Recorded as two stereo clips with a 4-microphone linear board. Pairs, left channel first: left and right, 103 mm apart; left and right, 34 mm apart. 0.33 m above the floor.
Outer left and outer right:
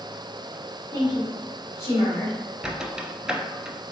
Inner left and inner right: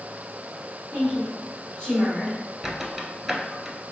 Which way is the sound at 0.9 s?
30° left (ahead or behind).